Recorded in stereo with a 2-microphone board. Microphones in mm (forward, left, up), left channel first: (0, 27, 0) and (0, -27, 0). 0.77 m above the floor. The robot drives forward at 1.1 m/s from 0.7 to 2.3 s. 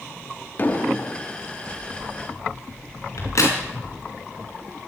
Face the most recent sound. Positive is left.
turn(degrees=65)  # may be behind; listen again after turning